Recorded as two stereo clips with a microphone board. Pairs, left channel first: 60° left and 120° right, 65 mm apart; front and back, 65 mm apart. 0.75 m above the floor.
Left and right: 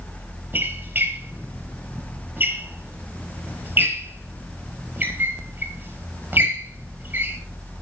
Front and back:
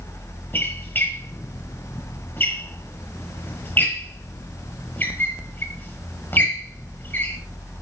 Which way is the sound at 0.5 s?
60° right.